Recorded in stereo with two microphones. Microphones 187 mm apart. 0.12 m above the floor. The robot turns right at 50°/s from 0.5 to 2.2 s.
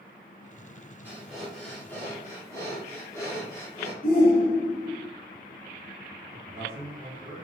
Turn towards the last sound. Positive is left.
turn(degrees=-25)  # may be behind; listen again after turning